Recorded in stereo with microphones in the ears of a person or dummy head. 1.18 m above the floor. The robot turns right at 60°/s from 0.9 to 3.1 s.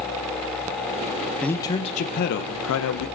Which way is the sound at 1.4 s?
5° left.